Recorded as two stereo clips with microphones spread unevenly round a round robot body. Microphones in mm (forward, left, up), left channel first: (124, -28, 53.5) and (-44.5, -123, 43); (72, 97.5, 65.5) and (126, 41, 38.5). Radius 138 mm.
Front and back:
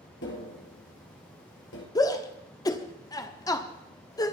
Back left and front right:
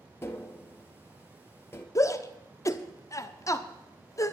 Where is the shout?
85° left, 1.2 m.